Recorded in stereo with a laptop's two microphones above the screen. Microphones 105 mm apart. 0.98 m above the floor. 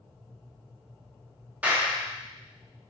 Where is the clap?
15° right (ahead or behind), 1.4 m.